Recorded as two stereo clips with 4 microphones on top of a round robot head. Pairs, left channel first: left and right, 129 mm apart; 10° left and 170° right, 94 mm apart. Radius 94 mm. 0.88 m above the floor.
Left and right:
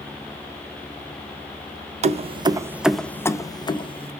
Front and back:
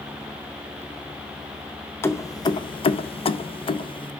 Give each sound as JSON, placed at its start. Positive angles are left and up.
{"t": 2.0, "sound": "keys jangling", "azimuth_deg": -55, "distance_m": 0.6}